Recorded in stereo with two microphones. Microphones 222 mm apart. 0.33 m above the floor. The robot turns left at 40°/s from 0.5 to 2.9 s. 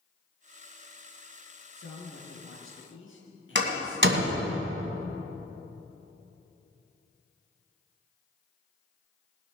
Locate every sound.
1.8 s a man speaking: 110° left, 4 m; by 4.5 s 65° left, 4 m
3.5 s a door slam: 55° right (ahead or behind), 2 m